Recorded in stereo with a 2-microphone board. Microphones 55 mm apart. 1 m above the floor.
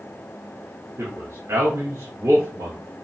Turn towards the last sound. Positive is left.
turn(degrees=-65)  # may be behind; listen again after turning